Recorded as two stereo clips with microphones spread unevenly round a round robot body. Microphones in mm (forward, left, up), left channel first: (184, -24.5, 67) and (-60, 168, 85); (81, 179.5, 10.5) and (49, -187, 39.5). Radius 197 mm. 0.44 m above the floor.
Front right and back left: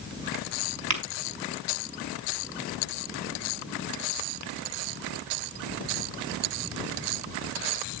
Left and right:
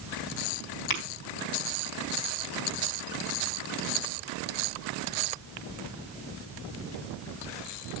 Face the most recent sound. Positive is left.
turn(degrees=115)